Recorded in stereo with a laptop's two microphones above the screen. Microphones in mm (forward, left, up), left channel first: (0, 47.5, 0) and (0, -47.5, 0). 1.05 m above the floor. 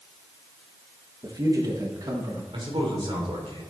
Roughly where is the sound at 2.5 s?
Right.